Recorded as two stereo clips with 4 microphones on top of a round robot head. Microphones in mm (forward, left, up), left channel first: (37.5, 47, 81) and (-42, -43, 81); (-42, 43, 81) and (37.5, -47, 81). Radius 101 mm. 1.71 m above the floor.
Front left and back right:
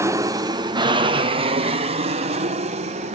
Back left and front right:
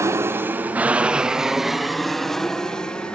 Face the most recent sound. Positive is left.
turn(degrees=-145)